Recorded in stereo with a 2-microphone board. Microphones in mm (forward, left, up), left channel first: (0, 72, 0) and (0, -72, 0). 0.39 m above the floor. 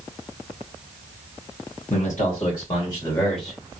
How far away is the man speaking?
About 2.5 m.